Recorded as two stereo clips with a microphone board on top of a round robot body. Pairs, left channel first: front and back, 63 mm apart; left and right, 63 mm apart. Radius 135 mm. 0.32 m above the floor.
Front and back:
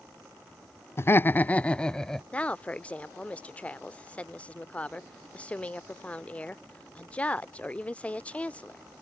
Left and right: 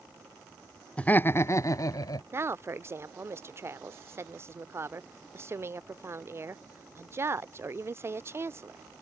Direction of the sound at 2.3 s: 60° right.